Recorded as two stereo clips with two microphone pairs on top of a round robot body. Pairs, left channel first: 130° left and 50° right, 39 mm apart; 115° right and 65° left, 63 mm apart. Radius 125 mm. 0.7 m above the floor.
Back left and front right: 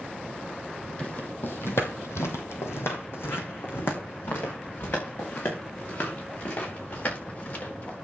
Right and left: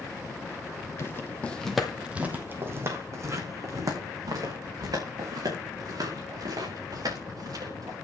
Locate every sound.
1.0 s footsteps: 165° right, 1.6 m; by 8.0 s 85° left, 8.5 m